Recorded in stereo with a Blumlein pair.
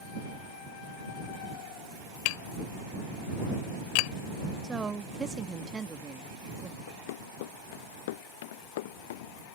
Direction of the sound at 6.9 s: 55° left.